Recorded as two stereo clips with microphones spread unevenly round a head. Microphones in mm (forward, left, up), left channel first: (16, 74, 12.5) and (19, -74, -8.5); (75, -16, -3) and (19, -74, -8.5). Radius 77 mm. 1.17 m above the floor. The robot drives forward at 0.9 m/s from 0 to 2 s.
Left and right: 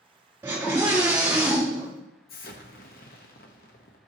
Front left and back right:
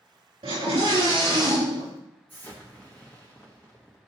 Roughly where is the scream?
Behind.